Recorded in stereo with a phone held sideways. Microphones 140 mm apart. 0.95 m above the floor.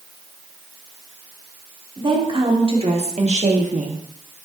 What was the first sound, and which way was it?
A woman speaking, 35° right (ahead or behind).